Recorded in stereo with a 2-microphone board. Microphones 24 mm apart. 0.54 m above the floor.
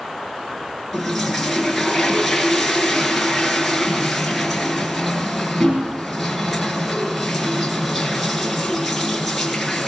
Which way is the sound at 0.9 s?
Centre (ahead or behind).